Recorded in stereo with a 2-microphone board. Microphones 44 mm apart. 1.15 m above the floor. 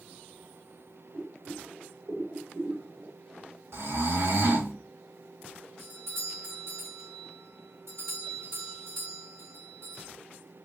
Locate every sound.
1.1 s boiling: 75° right (ahead or behind), 3 m
3.7 s snoring: 90° right, 3 m
5.8 s a doorbell: 80° right, 3 m